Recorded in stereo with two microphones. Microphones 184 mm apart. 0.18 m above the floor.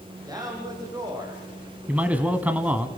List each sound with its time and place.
0.3 s a man speaking: 20° right (ahead or behind), 7 m; by 2.3 s 15° right (ahead or behind), 8 m
1.9 s a man speaking: 10° right (ahead or behind), 1.3 m